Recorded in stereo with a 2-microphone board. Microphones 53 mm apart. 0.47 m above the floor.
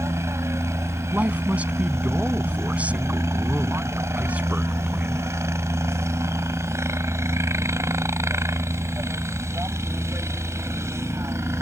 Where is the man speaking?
25° right (ahead or behind).